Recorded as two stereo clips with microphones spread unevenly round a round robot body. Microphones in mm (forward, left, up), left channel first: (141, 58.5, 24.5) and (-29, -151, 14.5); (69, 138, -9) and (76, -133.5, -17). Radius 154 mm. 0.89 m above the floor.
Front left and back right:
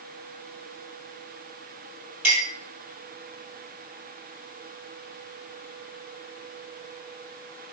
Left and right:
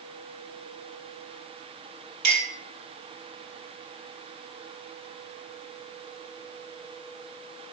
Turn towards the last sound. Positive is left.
turn(degrees=-65)